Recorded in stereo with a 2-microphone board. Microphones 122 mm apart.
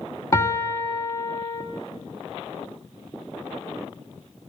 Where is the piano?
25° left (ahead or behind), 1.1 m.